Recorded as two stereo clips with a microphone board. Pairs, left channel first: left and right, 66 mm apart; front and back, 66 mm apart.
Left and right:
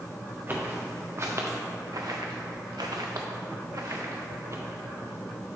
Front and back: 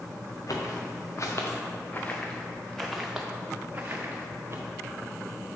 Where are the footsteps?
30° right, 1.8 m; by 4.6 s 130° right, 1.8 m.